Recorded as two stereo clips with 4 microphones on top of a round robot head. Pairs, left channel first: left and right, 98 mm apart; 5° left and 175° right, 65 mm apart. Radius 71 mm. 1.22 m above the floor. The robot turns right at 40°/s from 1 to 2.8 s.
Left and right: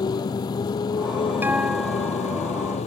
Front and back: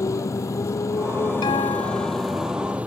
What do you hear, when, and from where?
0.0 s a motorcycle: 40° left; by 2.9 s 115° left
1.4 s a guitar: 20° right; by 2.5 s 25° left